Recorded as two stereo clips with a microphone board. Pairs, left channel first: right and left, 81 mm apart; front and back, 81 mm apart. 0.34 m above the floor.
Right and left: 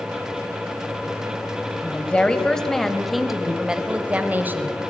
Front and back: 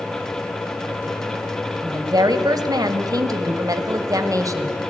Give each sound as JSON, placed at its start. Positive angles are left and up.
{"t": 1.8, "sound": "a woman speaking", "azimuth_deg": -160, "distance_m": 2.0}